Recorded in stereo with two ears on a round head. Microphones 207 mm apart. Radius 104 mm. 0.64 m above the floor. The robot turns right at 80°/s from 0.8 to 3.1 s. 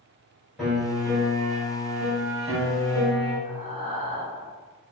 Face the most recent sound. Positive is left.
turn(degrees=-30)  # may be behind; listen again after turning